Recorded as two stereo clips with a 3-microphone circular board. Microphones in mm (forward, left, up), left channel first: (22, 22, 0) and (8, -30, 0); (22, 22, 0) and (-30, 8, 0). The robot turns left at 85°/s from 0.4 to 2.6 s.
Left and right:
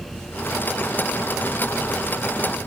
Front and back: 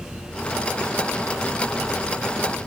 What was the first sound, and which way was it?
Only background noise.